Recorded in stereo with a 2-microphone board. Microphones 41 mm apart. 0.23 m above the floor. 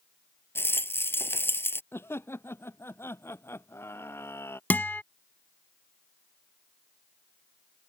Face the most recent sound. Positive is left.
turn(degrees=50)  # may be behind; listen again after turning